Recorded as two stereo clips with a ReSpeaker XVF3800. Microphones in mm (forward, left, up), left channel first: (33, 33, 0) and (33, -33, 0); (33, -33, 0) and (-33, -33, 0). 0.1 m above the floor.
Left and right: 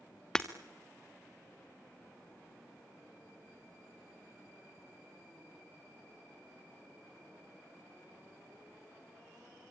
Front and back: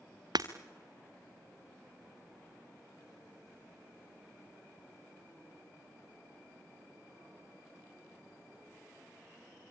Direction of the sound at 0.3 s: 170° left.